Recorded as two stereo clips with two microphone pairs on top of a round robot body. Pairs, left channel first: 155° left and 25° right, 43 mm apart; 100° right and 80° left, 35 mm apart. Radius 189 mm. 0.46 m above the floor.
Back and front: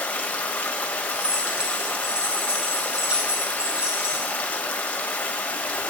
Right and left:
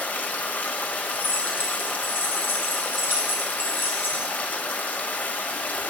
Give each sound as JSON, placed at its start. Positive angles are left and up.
{"t": 0.0, "sound": "running water", "azimuth_deg": -145, "distance_m": 1.2}
{"t": 1.1, "sound": "keys jangling", "azimuth_deg": -95, "distance_m": 3.5}